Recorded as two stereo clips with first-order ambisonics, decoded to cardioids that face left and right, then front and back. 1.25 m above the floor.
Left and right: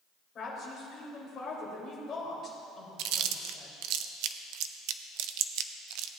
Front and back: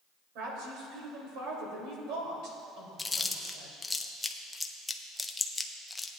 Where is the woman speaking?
150° left, 3.5 m.